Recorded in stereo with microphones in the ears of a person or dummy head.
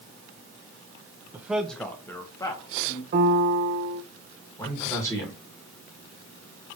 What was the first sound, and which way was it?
A man speaking, 10° right (ahead or behind).